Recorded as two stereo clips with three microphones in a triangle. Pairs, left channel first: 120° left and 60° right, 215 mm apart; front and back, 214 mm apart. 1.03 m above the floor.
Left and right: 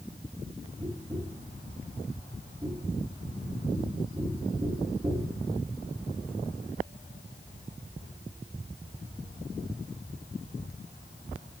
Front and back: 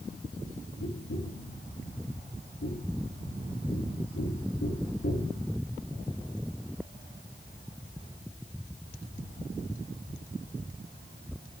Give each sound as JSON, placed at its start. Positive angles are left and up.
{"t": 0.8, "sound": "tapping", "azimuth_deg": 10, "distance_m": 2.5}